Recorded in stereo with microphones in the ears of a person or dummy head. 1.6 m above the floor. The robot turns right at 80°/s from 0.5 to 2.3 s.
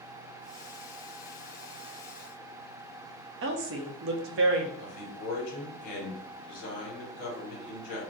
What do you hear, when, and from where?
3.4 s a woman speaking: 70° right (ahead or behind), 0.6 m
4.8 s a man speaking: 55° left (ahead or behind), 1.3 m